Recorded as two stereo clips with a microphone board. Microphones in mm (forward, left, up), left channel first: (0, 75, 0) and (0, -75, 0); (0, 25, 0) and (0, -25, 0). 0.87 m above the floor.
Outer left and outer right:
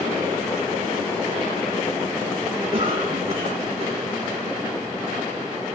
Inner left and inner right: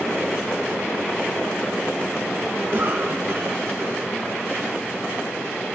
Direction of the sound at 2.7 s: 45° right (ahead or behind).